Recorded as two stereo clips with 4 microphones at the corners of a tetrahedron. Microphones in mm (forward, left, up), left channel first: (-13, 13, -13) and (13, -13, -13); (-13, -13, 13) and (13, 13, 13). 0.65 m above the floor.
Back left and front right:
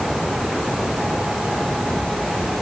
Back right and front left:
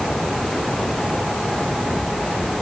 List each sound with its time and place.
Only background noise.